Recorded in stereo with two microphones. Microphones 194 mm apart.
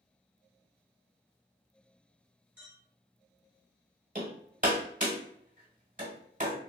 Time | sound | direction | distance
2.6 | a clink | 10° right (ahead or behind) | 1.7 m
4.2 | hammering | 40° right (ahead or behind) | 1.1 m